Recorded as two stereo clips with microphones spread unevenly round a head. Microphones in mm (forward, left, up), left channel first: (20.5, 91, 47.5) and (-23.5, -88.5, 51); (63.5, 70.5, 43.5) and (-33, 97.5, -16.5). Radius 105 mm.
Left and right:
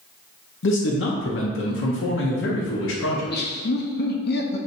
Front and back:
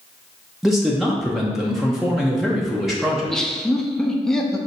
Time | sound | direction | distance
0.6 | a man speaking | 85° left | 0.8 m
3.1 | laughter | 90° left | 0.8 m